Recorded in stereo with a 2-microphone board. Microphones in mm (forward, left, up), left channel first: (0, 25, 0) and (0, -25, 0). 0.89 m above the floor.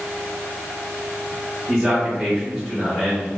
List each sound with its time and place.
1.7 s a man speaking: 25° right (ahead or behind), 1.8 m; by 3.3 s centre (ahead or behind), 2 m